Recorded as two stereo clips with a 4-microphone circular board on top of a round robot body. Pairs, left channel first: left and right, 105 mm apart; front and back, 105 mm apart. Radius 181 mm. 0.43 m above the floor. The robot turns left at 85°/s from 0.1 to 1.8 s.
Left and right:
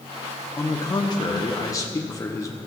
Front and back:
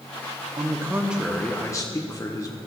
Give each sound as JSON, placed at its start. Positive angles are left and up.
{"t": 0.6, "sound": "a man speaking", "azimuth_deg": 150, "distance_m": 1.1}